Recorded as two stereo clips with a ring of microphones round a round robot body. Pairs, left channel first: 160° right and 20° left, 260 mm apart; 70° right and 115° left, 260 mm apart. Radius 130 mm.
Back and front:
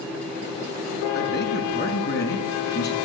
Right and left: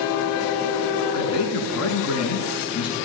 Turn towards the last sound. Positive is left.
turn(degrees=-105)